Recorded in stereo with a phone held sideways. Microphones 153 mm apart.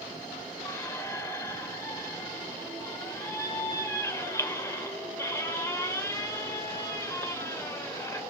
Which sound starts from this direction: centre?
A squeak, at 0.7 s.